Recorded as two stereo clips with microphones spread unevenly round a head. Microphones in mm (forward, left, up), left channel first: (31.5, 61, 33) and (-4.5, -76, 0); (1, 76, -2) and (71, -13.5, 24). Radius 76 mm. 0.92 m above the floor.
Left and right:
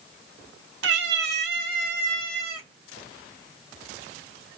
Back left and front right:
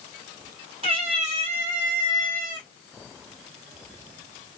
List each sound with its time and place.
0.8 s a cat meowing: 105° right, 1.0 m; by 2.7 s 85° right, 2.5 m